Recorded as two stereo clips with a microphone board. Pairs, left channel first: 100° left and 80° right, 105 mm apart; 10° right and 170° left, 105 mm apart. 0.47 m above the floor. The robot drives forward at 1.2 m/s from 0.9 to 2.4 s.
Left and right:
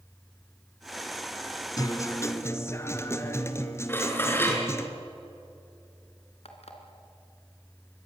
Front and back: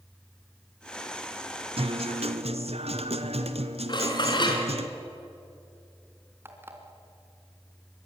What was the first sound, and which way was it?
A guitar, 150° left.